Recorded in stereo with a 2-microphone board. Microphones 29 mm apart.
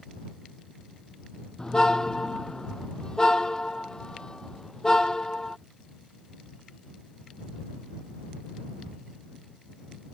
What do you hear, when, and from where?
1.6 s a car horn: 25° left (ahead or behind)